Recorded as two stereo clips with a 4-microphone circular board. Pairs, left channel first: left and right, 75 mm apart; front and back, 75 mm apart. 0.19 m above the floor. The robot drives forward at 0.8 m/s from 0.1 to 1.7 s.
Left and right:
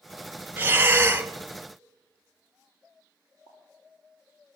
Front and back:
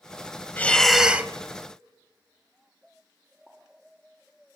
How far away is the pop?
About 8 m.